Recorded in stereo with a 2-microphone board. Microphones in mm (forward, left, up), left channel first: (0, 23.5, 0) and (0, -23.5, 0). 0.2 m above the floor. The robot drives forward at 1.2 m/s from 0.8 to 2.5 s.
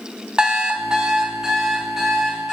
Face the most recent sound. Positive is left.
turn(degrees=-5)  # may be behind; listen again after turning